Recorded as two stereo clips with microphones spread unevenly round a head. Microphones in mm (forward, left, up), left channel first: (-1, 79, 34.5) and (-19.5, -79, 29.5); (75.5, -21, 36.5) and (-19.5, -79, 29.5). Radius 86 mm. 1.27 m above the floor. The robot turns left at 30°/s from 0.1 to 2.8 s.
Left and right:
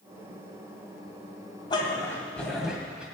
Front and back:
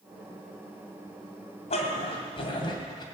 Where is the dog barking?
20° left, 2.5 m; by 3.0 s 10° right, 2.5 m.